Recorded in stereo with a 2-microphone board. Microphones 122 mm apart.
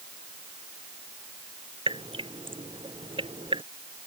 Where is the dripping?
45° right (ahead or behind).